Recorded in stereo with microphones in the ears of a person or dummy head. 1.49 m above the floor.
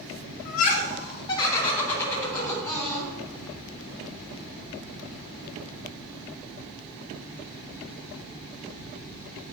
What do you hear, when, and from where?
0.5 s laughter: 50° left (ahead or behind), 1.1 m; by 3.1 s 5° left (ahead or behind), 4 m